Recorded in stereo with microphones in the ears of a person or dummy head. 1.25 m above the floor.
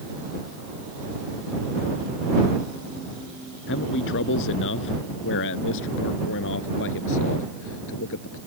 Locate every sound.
3.7 s a man speaking: 65° left (ahead or behind); by 8.4 s 70° left (ahead or behind)